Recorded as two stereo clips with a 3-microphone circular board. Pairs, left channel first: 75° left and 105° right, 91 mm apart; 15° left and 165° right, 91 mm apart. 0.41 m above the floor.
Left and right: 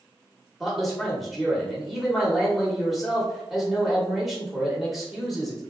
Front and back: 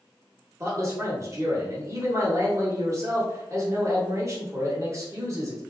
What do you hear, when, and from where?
0.6 s a man speaking: 165° left, 1.1 m